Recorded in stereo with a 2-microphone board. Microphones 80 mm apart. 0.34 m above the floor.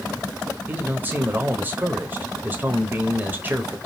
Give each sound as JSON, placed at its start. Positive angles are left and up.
{"t": 0.7, "sound": "a man speaking", "side_deg": -25, "distance_m": 1.0}